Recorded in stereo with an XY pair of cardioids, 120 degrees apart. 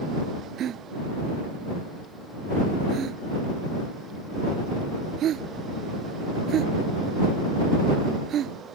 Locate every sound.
0.6 s a gasp: 55° right